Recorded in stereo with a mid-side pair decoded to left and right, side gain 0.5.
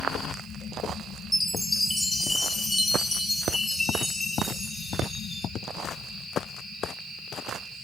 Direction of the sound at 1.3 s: 15° left.